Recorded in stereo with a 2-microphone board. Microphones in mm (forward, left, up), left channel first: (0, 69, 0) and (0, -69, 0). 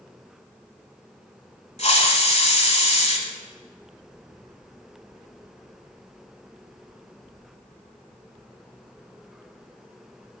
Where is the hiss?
55° left (ahead or behind), 0.9 m.